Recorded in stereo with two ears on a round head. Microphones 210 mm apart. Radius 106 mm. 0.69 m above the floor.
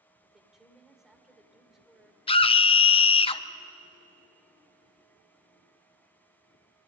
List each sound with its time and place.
0.2 s a woman speaking: centre (ahead or behind), 2.5 m
2.3 s a scream: 25° left (ahead or behind), 0.6 m